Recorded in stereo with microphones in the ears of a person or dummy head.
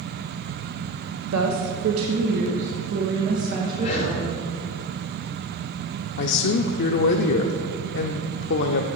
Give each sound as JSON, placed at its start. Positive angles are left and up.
{"t": 1.2, "sound": "a woman speaking", "side_deg": -70, "distance_m": 0.9}
{"t": 3.8, "sound": "breathing", "side_deg": 35, "distance_m": 3.0}
{"t": 6.2, "sound": "a man speaking", "side_deg": 60, "distance_m": 0.6}